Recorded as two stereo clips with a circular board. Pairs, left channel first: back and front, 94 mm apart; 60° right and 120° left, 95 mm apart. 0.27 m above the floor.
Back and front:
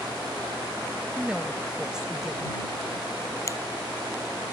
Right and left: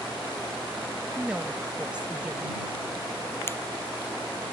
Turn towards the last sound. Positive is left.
turn(degrees=-125)